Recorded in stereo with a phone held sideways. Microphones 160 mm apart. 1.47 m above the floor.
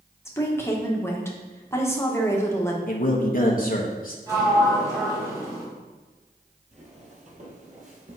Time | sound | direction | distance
0.2 | a woman speaking | 15° left (ahead or behind) | 1.6 m
2.9 | a man speaking | 60° left (ahead or behind) | 1.2 m
4.3 | a sliding door | 20° right (ahead or behind) | 3.5 m
6.7 | footsteps | 45° right (ahead or behind) | 2.0 m